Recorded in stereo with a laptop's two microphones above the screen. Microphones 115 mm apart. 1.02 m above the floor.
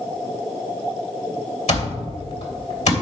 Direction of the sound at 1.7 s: 75° left (ahead or behind).